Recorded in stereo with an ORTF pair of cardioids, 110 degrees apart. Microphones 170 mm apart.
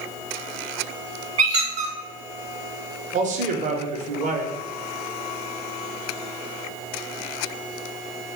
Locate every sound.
1.4 s a squeak: 45° right, 0.9 m
3.1 s a man speaking: 50° right, 0.8 m